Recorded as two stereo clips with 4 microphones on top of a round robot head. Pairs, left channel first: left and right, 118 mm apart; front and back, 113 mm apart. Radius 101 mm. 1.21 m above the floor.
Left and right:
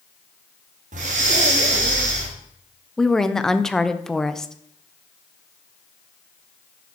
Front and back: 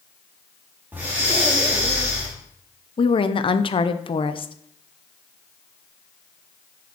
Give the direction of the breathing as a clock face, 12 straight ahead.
3 o'clock.